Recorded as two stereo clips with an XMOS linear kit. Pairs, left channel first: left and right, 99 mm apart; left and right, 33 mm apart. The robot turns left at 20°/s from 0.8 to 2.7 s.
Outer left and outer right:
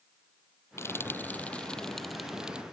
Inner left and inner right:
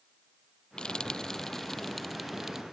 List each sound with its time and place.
0.8 s frying: 25° left (ahead or behind); by 2.6 s 10° right (ahead or behind)